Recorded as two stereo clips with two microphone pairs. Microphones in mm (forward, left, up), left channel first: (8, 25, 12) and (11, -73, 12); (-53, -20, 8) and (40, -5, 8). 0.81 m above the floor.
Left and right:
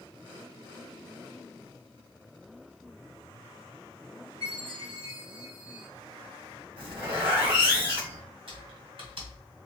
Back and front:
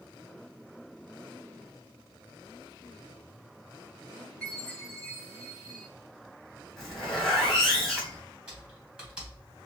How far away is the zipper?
About 2.5 m.